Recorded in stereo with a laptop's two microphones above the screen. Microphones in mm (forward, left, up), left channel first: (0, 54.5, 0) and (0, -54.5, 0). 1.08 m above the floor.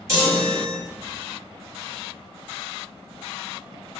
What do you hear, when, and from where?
0.1 s a chime: 25° right (ahead or behind), 1.3 m